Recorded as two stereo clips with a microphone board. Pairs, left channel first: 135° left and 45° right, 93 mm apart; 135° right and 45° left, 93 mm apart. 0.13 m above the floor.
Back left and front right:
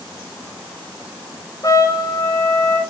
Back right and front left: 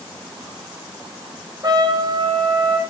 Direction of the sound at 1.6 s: 85° left.